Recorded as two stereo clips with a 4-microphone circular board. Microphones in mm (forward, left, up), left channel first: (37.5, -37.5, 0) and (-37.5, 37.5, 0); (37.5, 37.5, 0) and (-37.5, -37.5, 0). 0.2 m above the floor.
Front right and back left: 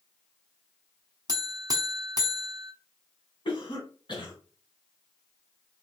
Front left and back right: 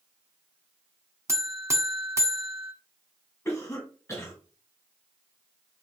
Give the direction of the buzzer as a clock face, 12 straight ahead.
6 o'clock.